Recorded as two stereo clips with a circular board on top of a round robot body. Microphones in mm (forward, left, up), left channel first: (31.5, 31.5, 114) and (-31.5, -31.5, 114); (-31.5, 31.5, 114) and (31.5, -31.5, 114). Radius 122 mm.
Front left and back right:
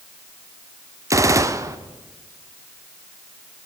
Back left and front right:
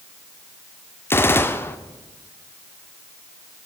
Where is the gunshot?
170° right, 1.0 m.